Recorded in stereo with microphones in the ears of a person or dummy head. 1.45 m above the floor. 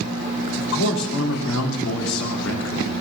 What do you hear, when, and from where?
0.6 s a man speaking: 75° left (ahead or behind), 3.5 m